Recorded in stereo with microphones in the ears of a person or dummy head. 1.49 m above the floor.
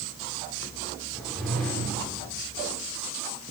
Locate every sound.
1.1 s a whoosh: centre (ahead or behind), 5.5 m